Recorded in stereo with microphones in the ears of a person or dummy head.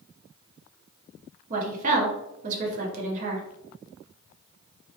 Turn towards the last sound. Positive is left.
turn(degrees=-40)  # may be behind; listen again after turning